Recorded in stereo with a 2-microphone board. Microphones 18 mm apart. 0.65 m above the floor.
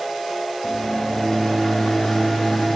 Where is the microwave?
35° left (ahead or behind), 0.6 m.